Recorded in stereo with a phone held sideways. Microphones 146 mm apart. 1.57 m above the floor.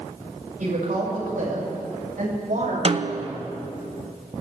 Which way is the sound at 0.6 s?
75° right (ahead or behind).